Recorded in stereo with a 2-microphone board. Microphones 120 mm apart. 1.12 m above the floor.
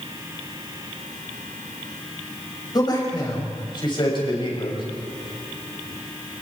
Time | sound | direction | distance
2.7 | a man speaking | 35° left (ahead or behind) | 7 m